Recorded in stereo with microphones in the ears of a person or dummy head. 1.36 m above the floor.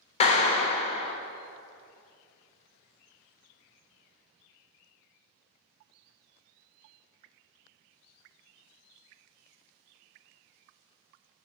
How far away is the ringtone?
I don't hear a ringtone.